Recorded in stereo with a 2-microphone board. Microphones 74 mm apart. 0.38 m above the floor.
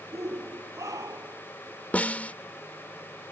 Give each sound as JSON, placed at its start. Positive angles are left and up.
{"t": 0.1, "sound": "a shout", "side_deg": -50}
{"t": 1.9, "sound": "a snare drum", "side_deg": 20}